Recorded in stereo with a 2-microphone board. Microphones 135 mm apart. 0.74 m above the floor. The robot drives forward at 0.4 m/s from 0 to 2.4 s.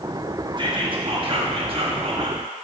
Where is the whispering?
40° right (ahead or behind), 1.2 m; by 2.4 s 45° right (ahead or behind), 1.1 m.